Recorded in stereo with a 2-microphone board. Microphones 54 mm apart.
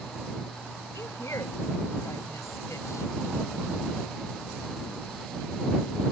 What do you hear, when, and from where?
0.9 s a woman speaking: 65° left (ahead or behind)